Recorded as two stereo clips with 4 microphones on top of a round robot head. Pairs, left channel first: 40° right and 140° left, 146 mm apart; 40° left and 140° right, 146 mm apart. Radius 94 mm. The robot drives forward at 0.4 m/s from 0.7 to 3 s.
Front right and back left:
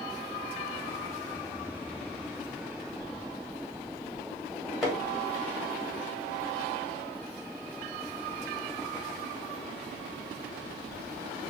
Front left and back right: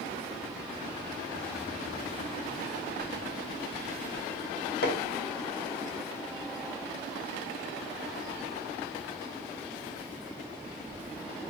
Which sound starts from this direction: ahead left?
Hammering, at 4.8 s.